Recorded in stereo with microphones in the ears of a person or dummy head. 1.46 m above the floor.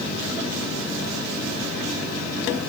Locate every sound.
Only background noise.